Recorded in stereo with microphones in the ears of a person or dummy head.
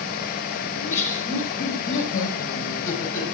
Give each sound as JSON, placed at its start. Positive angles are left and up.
{"t": 0.7, "sound": "laughter", "side_deg": 65, "distance_m": 4.0}